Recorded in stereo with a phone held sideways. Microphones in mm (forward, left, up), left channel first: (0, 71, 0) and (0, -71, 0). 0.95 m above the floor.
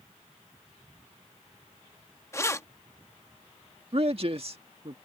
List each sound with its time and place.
2.3 s keys jangling: 20° left (ahead or behind)
3.9 s a man speaking: 45° right (ahead or behind)